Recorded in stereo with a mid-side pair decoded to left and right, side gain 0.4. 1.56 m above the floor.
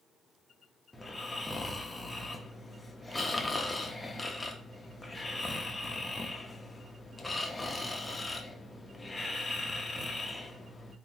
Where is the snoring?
15° left, 0.7 m.